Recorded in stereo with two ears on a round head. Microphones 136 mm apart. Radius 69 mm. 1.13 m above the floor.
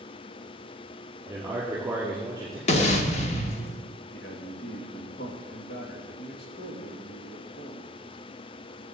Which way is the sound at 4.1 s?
70° left (ahead or behind).